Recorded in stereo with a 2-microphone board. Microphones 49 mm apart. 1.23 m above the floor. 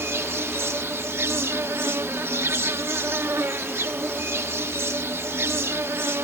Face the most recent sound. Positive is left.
turn(degrees=-60)  # may be behind; listen again after turning